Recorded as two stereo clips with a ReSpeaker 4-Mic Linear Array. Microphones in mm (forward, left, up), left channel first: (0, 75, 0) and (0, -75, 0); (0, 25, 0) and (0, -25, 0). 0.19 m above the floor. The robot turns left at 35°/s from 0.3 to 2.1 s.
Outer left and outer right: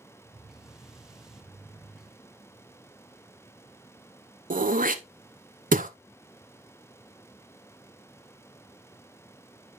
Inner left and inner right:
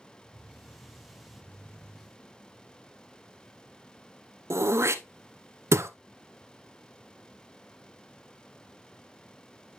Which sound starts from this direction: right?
Throat clearing, at 4.5 s.